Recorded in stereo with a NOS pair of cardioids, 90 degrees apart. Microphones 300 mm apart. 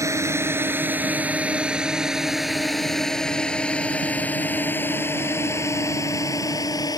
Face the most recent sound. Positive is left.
turn(degrees=15)